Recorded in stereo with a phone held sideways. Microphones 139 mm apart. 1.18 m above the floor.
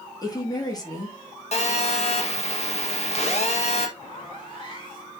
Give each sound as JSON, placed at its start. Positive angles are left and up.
{"t": 0.2, "sound": "a woman speaking", "side_deg": 30, "distance_m": 2.5}
{"t": 1.5, "sound": "a phone buzzing", "side_deg": 50, "distance_m": 1.8}
{"t": 4.0, "sound": "a zipper", "side_deg": 35, "distance_m": 3.0}